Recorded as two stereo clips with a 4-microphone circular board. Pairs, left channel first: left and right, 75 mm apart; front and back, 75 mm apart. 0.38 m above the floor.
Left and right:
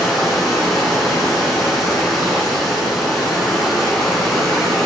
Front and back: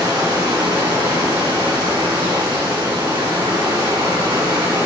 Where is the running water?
Straight behind, 4 m.